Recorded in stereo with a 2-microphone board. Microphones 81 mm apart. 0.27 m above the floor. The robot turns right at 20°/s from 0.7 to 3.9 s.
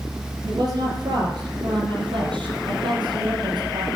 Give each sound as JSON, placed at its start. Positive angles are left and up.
{"t": 0.5, "sound": "a woman speaking", "azimuth_deg": -125, "distance_m": 6.0}